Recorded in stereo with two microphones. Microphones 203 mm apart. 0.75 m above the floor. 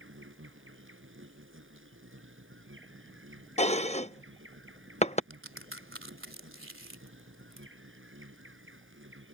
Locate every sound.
0.0 s an insect: 85° right
3.6 s dishes clattering: 35° left (ahead or behind)
5.3 s a crack: 90° right